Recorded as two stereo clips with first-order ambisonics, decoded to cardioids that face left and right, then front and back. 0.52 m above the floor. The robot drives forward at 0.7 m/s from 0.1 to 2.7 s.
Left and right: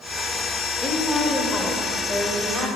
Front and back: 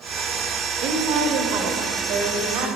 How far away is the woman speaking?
About 1.3 m.